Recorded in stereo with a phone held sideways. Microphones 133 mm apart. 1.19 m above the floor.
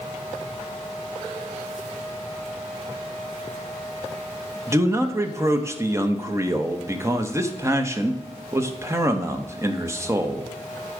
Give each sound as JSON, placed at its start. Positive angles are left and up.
{"t": 4.7, "sound": "a man speaking", "side_deg": -20, "distance_m": 0.9}